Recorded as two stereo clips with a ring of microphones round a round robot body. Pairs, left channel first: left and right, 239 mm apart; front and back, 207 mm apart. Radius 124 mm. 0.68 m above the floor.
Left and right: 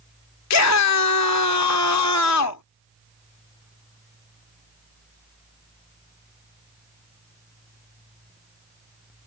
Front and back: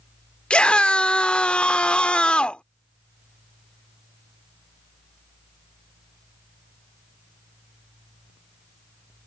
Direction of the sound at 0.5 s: 85° left.